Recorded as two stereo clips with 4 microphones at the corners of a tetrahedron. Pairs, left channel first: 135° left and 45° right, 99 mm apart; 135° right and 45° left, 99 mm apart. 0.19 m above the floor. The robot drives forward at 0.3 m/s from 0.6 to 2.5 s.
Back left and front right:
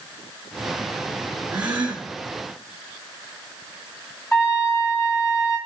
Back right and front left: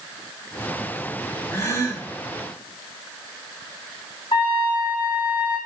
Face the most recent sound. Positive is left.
turn(degrees=-160)